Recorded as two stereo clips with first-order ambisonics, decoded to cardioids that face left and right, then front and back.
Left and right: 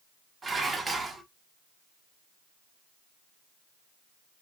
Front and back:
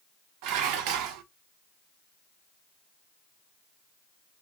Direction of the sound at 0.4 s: 165° right.